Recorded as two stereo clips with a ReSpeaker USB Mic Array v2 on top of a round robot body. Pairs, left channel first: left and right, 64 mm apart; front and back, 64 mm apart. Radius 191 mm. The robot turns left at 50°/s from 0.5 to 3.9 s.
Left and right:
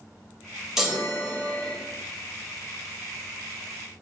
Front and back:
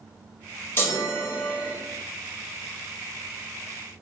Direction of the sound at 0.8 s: 10° right.